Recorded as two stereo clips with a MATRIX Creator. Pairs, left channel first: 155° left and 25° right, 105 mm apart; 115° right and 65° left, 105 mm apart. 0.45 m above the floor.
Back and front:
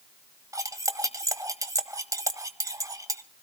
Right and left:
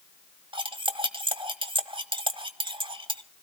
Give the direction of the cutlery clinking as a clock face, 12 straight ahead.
11 o'clock.